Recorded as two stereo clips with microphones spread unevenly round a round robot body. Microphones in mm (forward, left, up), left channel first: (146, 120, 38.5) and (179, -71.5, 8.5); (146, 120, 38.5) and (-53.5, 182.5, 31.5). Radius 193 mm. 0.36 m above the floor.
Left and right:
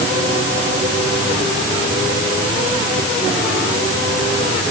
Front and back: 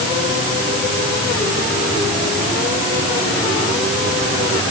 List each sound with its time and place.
Only background noise.